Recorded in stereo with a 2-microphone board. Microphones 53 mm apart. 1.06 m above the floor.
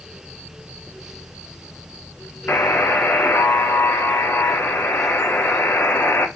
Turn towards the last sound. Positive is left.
turn(degrees=45)  # may be behind; listen again after turning